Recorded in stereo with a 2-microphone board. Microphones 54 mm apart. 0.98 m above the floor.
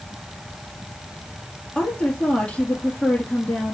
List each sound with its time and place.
1.8 s a woman speaking: 20° left (ahead or behind), 1.8 m